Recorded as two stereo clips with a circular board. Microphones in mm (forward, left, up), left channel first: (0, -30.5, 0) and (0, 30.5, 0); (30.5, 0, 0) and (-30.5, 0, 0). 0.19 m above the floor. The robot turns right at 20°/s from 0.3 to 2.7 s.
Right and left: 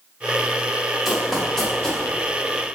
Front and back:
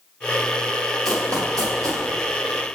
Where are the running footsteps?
175° left, 2 m; by 2.0 s 165° right, 2 m.